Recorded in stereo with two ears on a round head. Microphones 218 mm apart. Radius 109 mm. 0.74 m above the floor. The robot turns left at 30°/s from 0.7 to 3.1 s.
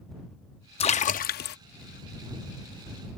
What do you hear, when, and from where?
0.8 s a splash: 25° left (ahead or behind); by 1.6 s 45° left (ahead or behind)